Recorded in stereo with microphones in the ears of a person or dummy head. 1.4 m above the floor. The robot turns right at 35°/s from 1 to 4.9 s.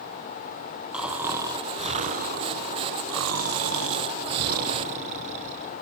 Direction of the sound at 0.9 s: Straight behind.